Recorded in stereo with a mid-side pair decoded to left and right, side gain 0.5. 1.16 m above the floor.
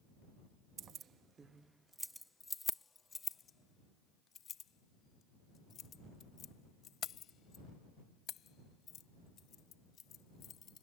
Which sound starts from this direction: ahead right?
Keys jangling, at 0.8 s.